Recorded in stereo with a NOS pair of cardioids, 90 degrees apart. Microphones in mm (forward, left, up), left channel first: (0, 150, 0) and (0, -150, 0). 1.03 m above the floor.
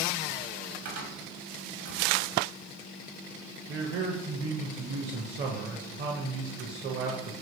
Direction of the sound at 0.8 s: 60° right.